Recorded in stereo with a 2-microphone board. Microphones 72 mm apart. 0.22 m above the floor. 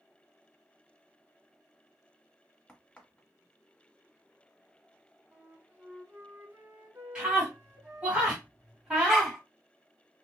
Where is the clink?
No clink in this recording.